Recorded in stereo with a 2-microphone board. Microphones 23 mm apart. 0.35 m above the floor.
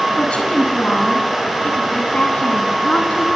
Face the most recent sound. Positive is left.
turn(degrees=75)  # may be behind; listen again after turning